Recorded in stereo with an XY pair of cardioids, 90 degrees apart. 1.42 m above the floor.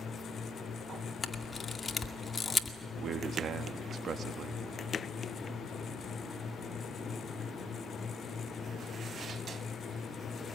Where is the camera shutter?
35° left, 2 m.